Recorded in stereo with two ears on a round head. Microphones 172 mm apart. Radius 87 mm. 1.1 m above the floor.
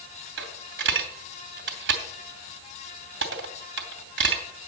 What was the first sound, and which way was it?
A dropped coin, 65° right (ahead or behind).